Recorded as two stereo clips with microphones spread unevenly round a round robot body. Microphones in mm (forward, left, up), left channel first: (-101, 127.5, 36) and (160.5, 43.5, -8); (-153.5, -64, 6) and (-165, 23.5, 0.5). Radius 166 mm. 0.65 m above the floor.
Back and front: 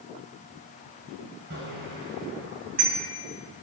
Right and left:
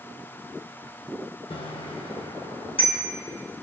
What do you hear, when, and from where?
1.5 s a bicycle bell: 80° right, 2.5 m; by 3.0 s 85° right, 3 m